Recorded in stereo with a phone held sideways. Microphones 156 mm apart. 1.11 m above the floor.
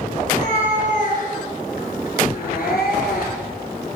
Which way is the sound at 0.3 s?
50° left (ahead or behind).